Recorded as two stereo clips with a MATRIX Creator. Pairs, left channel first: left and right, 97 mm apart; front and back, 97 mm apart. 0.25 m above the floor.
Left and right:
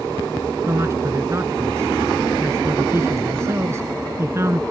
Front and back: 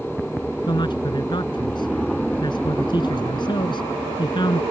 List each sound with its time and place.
0.7 s a man speaking: 30° right